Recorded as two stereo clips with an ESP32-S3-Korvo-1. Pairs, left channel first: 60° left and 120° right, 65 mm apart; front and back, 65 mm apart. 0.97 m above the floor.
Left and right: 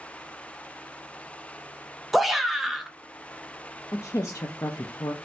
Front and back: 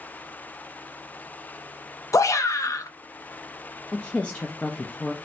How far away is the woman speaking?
About 0.5 m.